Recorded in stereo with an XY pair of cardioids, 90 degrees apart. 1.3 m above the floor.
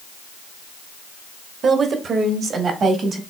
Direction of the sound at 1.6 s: 60° right.